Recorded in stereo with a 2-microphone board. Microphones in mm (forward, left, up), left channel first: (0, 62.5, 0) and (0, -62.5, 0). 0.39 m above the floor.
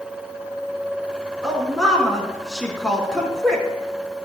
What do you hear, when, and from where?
1.4 s a woman speaking: 5° left (ahead or behind), 4 m